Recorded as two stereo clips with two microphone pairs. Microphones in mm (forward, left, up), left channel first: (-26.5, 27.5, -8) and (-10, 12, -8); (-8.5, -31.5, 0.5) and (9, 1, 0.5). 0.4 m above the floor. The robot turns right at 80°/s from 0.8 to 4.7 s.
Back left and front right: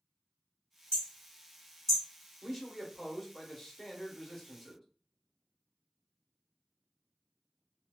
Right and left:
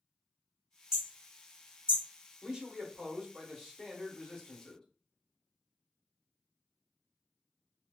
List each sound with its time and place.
0.9 s hammering: 135° left, 1.4 m; by 2.0 s 135° right, 1.4 m
2.4 s a man speaking: 30° left, 0.8 m; by 4.8 s 145° right, 0.8 m